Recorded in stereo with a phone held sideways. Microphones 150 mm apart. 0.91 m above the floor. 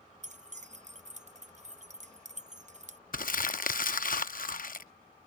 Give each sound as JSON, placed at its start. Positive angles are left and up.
{"t": 0.2, "sound": "keys jangling", "side_deg": -50}
{"t": 3.1, "sound": "crumpling", "side_deg": 65}